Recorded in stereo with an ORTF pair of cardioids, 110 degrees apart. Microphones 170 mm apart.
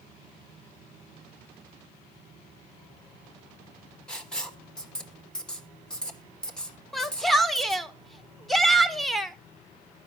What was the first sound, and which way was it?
Writing, 5° left.